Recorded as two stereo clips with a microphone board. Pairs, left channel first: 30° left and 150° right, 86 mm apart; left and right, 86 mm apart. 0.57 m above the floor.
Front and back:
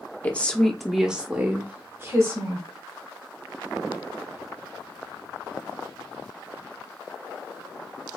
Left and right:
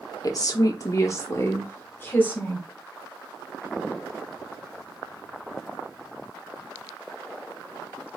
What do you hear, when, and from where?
0.2 s a woman speaking: 95° left, 0.9 m; by 2.7 s 160° left, 1.5 m